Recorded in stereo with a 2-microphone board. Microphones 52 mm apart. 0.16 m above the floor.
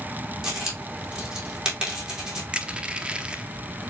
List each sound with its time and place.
0.4 s a dropped coin: 15° right (ahead or behind), 3 m
2.5 s crushing: 20° right (ahead or behind), 0.7 m